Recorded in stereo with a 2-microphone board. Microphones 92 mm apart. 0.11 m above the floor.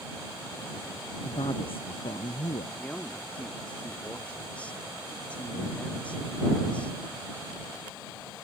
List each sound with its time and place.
1.2 s a man speaking: 75° left (ahead or behind)
2.8 s a man speaking: 15° left (ahead or behind)